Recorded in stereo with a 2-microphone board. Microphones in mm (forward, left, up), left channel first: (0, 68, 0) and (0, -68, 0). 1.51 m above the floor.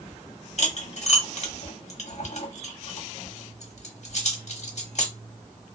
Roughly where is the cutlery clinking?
Left.